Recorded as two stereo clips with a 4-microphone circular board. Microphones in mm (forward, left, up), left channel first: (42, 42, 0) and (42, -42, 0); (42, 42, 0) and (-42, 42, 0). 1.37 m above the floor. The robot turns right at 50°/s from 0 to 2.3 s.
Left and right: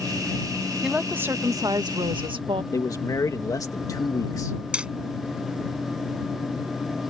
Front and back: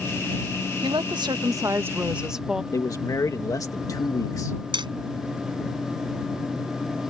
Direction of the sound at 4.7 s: 165° right.